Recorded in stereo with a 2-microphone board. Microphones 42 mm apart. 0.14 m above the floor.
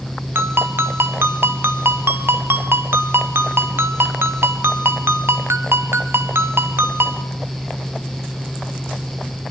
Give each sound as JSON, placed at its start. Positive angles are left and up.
{"t": 0.3, "sound": "a ringtone", "side_deg": -65, "distance_m": 1.3}